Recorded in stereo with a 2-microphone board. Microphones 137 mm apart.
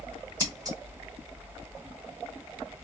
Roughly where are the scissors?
Right.